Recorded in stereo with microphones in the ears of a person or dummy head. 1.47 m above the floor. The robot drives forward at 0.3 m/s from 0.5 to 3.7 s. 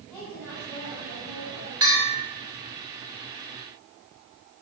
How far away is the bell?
About 2.5 m.